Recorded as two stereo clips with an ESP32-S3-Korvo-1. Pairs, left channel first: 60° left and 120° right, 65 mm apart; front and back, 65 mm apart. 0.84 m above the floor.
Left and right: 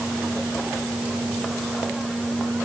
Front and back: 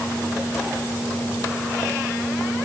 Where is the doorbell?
I don't hear a doorbell.